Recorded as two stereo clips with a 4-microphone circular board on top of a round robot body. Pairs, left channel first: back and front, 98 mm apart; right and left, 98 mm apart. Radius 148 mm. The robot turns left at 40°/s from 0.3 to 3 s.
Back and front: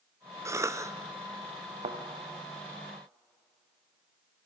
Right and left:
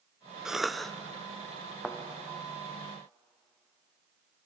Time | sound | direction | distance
0.5 | a cough | 15° left | 0.9 m
1.8 | a thud | 5° left | 3 m